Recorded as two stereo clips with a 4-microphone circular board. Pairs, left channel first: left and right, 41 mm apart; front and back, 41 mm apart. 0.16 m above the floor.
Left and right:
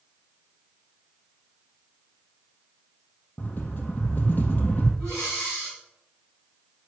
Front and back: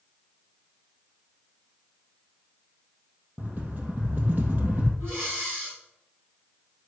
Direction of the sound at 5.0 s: 150° left.